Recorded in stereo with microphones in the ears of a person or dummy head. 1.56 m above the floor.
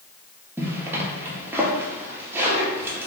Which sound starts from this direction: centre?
A zipper, at 0.6 s.